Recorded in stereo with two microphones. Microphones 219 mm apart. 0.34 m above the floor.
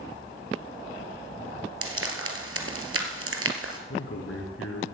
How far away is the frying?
About 1.5 m.